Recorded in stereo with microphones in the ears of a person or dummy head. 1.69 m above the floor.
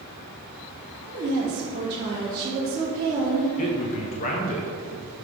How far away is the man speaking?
About 0.8 m.